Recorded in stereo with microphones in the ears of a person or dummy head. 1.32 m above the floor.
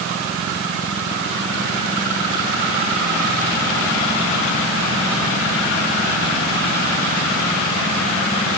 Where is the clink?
No clink in this recording.